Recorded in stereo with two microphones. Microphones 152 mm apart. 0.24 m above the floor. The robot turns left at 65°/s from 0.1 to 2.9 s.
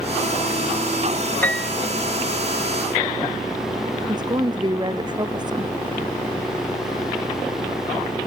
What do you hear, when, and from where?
1.4 s a piano: 10° left (ahead or behind); by 1.7 s 5° right (ahead or behind)
4.1 s a woman speaking: 30° right (ahead or behind)